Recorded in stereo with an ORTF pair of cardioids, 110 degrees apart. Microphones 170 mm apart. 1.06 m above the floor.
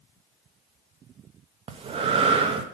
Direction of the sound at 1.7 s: 35° right.